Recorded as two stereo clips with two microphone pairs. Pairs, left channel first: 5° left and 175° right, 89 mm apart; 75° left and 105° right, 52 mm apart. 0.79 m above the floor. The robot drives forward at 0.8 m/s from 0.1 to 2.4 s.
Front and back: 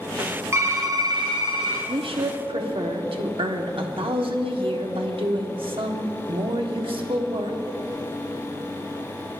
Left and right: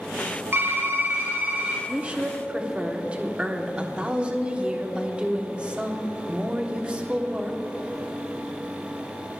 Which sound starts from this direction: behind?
A woman speaking, at 1.9 s.